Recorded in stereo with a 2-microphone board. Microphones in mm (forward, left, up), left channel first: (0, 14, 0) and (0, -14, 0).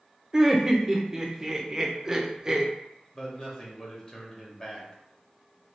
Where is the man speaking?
25° left (ahead or behind), 1.1 m.